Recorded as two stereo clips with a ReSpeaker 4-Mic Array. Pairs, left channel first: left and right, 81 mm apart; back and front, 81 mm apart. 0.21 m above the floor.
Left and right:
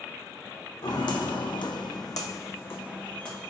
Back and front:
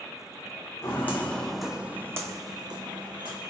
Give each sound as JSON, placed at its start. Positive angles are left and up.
{"t": 0.8, "sound": "footsteps", "azimuth_deg": 120, "distance_m": 0.7}